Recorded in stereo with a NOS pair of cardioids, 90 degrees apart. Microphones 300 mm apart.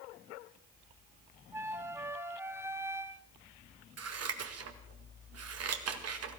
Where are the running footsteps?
No running footsteps in this recording.